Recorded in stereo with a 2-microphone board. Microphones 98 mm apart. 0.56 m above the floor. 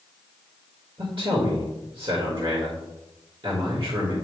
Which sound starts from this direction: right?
A man speaking, at 1.0 s.